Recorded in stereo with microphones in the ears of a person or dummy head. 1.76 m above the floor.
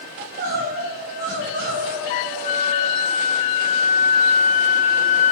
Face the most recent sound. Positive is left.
turn(degrees=45)  # may be behind; listen again after turning